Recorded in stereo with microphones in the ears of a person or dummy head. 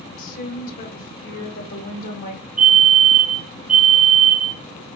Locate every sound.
0.2 s a woman speaking: 50° left (ahead or behind), 1.8 m
2.6 s a fire alarm: 10° right (ahead or behind), 1.9 m